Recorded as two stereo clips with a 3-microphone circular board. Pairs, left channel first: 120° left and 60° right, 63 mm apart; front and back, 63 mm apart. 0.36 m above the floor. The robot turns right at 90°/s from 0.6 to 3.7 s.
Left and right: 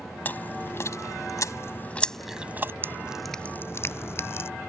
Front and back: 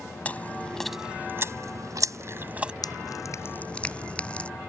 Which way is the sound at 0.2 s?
65° left.